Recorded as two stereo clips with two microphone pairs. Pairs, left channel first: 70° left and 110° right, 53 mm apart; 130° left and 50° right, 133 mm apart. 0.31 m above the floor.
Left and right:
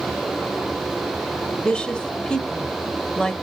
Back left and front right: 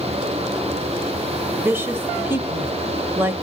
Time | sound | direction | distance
1.6 | a woman speaking | 5° left | 1.0 m